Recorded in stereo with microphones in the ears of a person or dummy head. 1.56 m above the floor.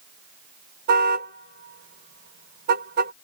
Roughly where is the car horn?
Right.